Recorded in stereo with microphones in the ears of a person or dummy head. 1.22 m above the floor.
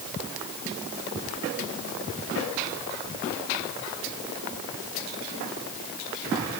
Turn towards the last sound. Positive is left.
No sound to turn to.